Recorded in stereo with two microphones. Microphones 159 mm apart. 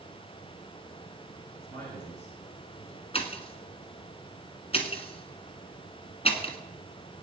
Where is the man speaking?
15° left (ahead or behind), 8 m.